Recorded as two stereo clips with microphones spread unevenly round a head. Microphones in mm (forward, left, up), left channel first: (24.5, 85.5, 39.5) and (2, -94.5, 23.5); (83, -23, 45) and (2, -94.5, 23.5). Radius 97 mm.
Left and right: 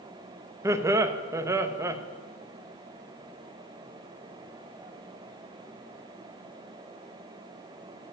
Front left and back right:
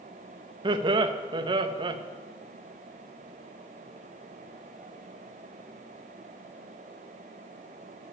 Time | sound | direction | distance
0.6 | laughter | 165° right | 0.9 m